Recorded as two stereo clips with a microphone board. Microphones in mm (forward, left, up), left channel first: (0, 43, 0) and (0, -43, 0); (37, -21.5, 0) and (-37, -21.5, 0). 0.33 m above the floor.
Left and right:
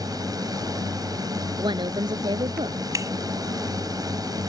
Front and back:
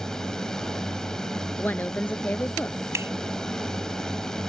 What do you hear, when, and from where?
0.0 s a drone: 80° right
1.6 s a woman speaking: 65° right
2.9 s a finger snap: 135° right